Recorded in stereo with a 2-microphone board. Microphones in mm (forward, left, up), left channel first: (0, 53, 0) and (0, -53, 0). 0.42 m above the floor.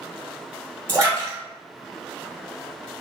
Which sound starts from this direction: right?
A splash, at 0.9 s.